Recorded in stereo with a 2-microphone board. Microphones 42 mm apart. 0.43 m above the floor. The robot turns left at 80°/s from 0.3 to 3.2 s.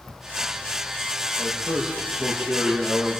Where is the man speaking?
25° right, 10 m; by 3.2 s 170° right, 10 m.